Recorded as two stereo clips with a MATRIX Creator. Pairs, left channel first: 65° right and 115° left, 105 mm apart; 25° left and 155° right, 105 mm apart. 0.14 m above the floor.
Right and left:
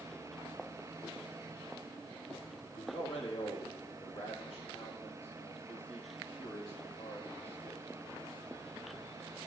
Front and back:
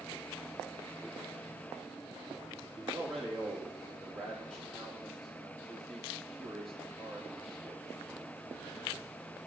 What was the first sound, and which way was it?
A man speaking, 65° right.